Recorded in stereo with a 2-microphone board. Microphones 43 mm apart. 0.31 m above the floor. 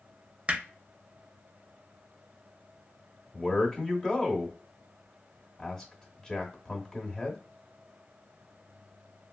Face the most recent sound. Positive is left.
turn(degrees=20)  # may be behind; listen again after turning